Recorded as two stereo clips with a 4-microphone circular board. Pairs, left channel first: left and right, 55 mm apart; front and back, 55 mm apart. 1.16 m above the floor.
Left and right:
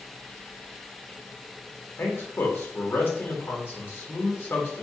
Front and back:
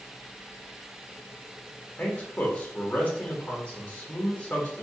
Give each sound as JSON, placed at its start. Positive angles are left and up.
{"t": 2.0, "sound": "a man speaking", "azimuth_deg": 60, "distance_m": 1.1}